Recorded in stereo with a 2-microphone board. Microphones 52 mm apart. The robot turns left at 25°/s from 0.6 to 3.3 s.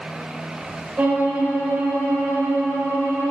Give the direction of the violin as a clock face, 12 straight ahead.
1 o'clock.